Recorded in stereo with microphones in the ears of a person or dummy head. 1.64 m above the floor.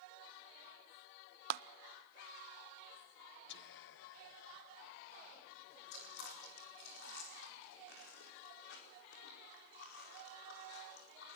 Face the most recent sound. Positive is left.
turn(degrees=65)  # may be behind; listen again after turning